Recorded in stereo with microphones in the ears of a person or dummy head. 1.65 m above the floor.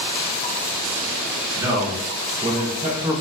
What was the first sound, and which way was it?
A man speaking, 15° right (ahead or behind).